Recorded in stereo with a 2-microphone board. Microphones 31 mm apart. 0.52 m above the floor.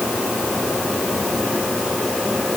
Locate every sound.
Only background noise.